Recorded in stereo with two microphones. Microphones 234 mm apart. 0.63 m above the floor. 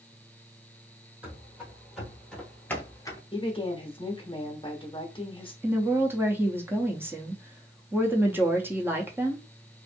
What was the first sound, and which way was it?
Running footsteps, 5° right (ahead or behind).